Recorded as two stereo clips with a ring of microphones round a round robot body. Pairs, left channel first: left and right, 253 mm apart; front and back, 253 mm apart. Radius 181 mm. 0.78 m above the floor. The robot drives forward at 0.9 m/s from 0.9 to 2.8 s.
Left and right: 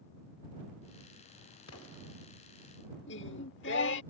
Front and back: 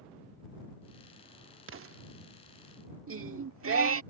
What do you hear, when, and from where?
1.7 s an explosion: 140° left; by 2.0 s 150° left
3.1 s singing: 145° left